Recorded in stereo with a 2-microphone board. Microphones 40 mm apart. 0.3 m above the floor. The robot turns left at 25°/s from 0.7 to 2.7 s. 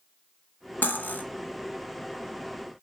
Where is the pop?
I don't hear a pop.